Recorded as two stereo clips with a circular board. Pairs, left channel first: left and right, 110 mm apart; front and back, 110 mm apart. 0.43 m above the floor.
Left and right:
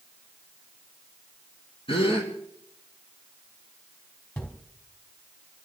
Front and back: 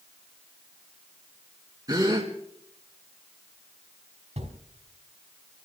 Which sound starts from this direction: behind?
Footsteps, at 4.4 s.